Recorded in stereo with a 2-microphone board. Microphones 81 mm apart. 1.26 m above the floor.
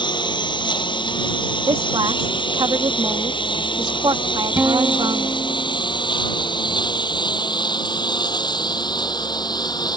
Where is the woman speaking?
70° right (ahead or behind).